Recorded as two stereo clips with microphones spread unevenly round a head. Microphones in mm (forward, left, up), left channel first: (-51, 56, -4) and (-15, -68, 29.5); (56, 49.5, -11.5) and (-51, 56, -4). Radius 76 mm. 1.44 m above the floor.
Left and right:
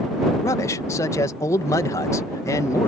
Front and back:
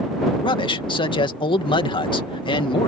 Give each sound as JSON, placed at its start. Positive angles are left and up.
{"t": 0.4, "sound": "a man speaking", "azimuth_deg": 35}